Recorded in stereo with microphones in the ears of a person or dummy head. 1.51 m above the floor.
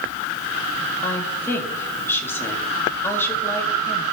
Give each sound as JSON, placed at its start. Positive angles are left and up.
{"t": 1.0, "sound": "a woman speaking", "side_deg": 10, "distance_m": 1.9}